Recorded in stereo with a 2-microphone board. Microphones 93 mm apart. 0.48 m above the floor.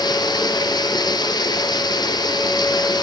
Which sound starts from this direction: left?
Running water, at 0.0 s.